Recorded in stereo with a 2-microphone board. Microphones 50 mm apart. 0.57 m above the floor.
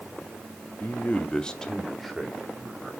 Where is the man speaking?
40° left (ahead or behind), 0.8 m; by 2.9 s 5° right (ahead or behind), 2.5 m.